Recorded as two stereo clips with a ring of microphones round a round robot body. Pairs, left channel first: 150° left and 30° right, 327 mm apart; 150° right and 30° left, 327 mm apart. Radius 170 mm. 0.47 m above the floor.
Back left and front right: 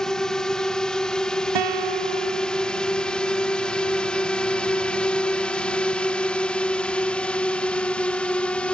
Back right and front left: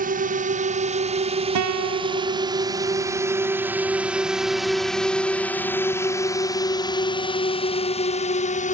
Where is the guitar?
10° right.